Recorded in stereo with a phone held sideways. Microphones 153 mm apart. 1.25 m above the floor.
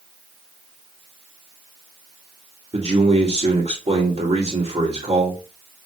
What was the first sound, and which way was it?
A man speaking, 45° right (ahead or behind).